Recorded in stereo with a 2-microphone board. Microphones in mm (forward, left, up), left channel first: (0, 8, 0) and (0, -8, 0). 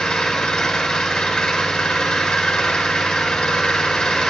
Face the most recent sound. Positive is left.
turn(degrees=75)  # may be behind; listen again after turning